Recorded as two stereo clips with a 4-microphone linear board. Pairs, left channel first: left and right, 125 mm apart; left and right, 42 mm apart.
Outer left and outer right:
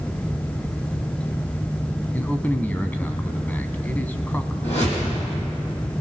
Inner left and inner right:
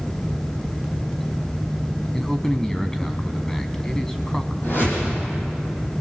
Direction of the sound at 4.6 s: 60° left (ahead or behind).